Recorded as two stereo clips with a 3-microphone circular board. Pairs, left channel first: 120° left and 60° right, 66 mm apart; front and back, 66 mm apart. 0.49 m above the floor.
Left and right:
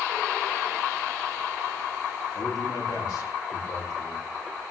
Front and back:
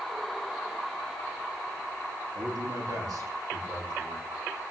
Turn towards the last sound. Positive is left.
turn(degrees=150)